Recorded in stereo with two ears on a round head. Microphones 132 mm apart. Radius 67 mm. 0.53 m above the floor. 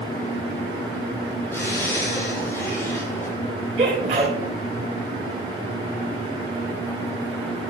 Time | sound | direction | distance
1.5 | a zipper | 20° left (ahead or behind) | 7 m
3.8 | a sneeze | 45° right (ahead or behind) | 2.5 m